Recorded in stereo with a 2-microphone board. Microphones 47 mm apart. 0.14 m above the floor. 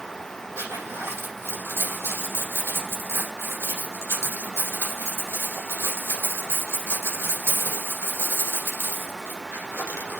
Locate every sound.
0.6 s a zipper: 75° right (ahead or behind), 6 m